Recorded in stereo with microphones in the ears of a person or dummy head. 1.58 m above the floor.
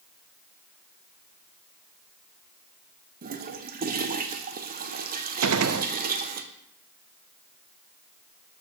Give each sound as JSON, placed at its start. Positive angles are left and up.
{"t": 3.2, "sound": "a toilet flushing", "side_deg": -40, "distance_m": 1.0}
{"t": 5.4, "sound": "a gunshot", "side_deg": -75, "distance_m": 0.8}